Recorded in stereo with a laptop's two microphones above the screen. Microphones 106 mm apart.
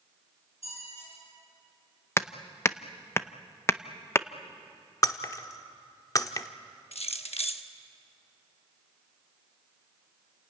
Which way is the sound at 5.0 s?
35° left (ahead or behind).